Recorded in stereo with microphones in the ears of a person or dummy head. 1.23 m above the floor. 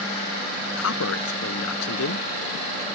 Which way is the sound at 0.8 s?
85° left.